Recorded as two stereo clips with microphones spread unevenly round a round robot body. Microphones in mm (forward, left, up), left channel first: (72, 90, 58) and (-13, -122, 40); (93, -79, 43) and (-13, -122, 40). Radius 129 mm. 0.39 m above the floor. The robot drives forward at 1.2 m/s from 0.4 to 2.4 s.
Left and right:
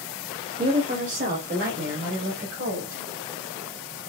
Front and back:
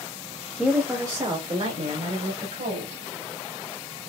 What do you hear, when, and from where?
0.6 s a woman speaking: 70° right, 1.1 m; by 3.0 s 165° right, 2 m